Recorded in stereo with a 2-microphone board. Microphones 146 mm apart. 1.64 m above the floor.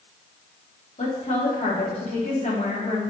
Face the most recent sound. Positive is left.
turn(degrees=50)  # may be behind; listen again after turning